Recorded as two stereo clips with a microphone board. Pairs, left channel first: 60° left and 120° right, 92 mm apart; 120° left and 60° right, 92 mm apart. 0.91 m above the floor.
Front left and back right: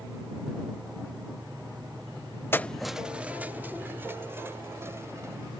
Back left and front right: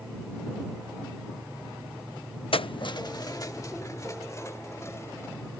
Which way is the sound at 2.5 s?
125° left.